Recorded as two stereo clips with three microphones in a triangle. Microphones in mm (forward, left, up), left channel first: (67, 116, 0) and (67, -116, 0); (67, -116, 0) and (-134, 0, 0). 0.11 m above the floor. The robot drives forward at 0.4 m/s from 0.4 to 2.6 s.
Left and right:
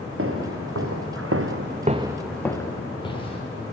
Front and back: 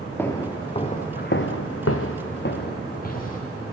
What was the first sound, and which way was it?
Footsteps, 110° right.